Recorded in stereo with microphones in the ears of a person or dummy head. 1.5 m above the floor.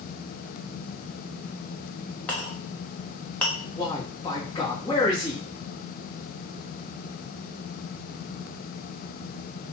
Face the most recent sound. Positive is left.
turn(degrees=20)  # may be behind; listen again after turning